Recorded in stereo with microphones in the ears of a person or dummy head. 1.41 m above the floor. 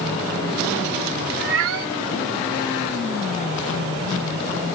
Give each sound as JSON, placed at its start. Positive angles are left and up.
{"t": 1.4, "sound": "a cat meowing", "side_deg": -65}